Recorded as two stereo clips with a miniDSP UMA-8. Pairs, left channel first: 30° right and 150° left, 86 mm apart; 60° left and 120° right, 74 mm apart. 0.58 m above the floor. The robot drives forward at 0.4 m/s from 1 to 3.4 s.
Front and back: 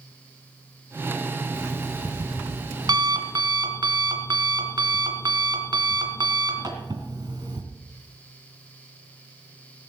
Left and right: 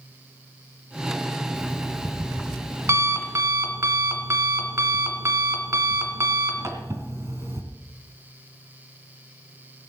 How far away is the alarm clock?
About 1.5 m.